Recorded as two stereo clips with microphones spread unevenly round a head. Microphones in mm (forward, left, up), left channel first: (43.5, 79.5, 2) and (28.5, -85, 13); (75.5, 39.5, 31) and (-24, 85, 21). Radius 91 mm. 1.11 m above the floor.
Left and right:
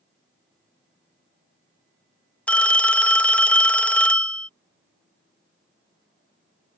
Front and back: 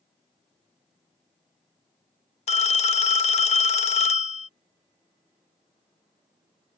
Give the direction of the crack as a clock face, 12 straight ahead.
I don't hear a crack.